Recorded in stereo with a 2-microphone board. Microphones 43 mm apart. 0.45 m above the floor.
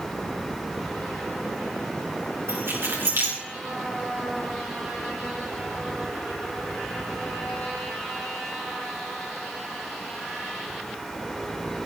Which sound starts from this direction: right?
Keys jangling, at 2.5 s.